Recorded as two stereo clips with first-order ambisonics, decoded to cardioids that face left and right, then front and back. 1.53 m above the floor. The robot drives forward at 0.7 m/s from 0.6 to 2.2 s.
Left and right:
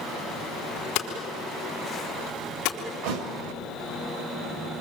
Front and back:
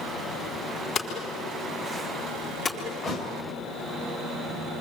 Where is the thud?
75° right, 3 m.